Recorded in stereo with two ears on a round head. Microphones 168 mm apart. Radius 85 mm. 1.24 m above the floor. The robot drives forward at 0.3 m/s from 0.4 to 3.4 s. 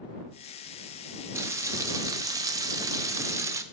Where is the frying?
15° right (ahead or behind), 0.6 m.